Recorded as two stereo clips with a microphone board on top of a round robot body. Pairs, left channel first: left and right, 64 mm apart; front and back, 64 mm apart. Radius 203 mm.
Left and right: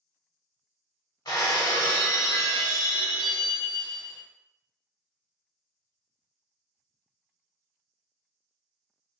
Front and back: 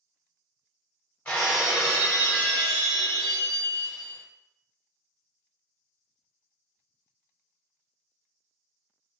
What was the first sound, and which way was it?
Breaking glass, 70° left.